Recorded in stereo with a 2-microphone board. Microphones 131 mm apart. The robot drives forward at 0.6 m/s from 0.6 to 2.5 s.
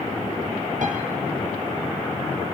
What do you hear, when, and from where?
0.8 s a piano: 70° right (ahead or behind), 3 m